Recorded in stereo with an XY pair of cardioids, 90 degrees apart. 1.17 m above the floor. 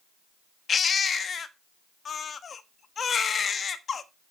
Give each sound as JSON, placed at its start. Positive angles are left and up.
{"t": 0.7, "sound": "a baby crying", "azimuth_deg": 50, "distance_m": 1.1}